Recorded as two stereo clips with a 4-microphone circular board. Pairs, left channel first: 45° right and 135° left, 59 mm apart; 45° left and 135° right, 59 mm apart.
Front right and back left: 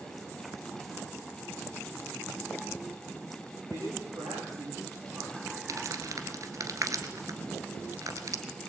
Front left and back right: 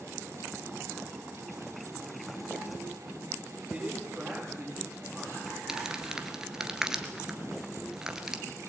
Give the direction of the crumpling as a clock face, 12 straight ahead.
7 o'clock.